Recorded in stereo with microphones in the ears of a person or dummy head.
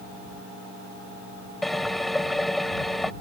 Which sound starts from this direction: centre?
A drill, at 1.6 s.